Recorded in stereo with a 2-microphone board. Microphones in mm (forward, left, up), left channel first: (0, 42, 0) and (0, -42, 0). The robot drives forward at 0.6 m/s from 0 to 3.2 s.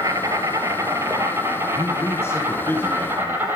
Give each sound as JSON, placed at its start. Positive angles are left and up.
{"t": 0.0, "sound": "an insect", "side_deg": -45, "distance_m": 2.5}
{"t": 1.8, "sound": "a man speaking", "side_deg": 35, "distance_m": 1.5}